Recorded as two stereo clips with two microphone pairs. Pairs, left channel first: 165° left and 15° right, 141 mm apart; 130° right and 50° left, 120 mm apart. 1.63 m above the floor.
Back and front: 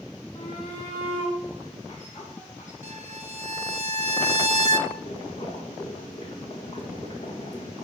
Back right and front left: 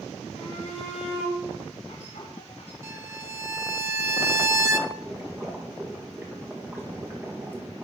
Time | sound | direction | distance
0.3 | a shout | 150° right | 3.5 m
2.8 | a violin | straight ahead | 0.8 m
4.9 | boiling | 120° left | 1.8 m